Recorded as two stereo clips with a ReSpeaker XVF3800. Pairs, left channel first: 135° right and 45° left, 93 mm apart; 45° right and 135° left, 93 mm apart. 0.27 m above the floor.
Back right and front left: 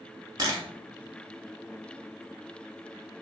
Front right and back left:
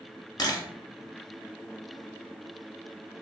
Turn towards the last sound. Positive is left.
turn(degrees=0)